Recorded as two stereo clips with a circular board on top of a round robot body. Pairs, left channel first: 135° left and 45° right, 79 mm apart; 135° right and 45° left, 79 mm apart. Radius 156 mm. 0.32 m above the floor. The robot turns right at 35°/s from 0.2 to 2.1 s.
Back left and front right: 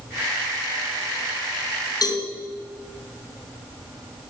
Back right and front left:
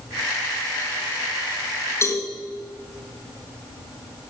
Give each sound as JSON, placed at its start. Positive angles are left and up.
{"t": 2.0, "sound": "a cowbell", "azimuth_deg": 170, "distance_m": 4.0}